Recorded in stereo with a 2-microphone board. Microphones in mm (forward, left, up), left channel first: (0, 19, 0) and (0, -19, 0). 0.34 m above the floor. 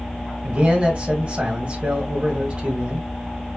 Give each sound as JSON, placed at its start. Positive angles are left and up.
{"t": 0.4, "sound": "a man speaking", "side_deg": -35, "distance_m": 1.6}